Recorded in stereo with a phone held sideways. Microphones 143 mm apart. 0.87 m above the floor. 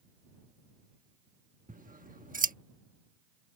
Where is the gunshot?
I don't hear a gunshot.